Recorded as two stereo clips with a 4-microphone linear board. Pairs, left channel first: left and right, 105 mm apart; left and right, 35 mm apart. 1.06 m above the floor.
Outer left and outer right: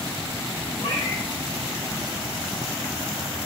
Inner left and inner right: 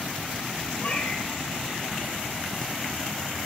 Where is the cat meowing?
60° left (ahead or behind), 5.5 m.